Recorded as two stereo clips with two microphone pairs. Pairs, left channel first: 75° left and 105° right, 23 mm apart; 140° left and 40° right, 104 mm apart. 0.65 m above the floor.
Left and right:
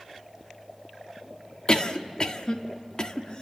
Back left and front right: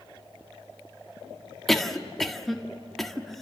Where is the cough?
55° left, 1.5 m.